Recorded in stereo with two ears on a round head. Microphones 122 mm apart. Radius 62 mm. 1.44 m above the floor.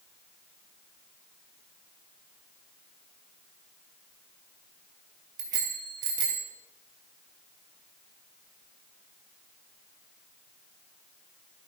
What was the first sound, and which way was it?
A bicycle bell, 30° right (ahead or behind).